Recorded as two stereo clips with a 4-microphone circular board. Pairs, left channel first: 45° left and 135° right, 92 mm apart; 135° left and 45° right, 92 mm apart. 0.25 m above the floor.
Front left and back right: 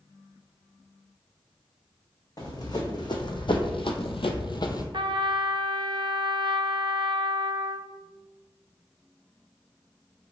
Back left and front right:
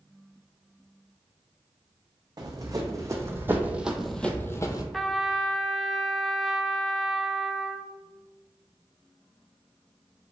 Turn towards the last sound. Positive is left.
turn(degrees=-140)